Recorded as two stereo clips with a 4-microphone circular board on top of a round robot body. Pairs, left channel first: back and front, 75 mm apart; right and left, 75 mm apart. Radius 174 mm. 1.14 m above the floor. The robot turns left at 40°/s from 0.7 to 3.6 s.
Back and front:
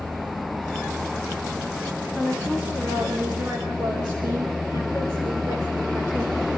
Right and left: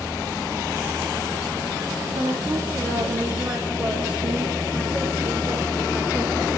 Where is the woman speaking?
95° left, 4 m; by 6.5 s 35° left, 4 m.